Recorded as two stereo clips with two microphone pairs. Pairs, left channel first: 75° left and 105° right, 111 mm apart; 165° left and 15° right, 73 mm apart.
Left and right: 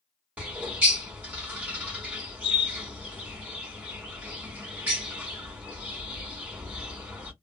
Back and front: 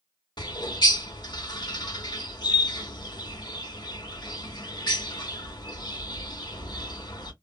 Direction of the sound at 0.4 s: 175° left.